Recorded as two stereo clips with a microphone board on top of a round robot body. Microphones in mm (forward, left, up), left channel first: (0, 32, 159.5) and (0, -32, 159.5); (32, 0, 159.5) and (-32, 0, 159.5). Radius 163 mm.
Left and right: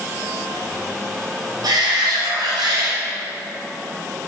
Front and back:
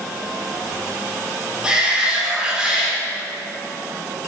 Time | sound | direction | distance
1.6 | a shout | 105° right | 3.5 m